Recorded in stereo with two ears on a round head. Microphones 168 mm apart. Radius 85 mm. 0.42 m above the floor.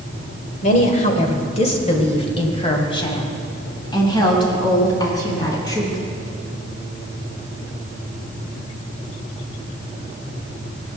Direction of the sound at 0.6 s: 40° left (ahead or behind).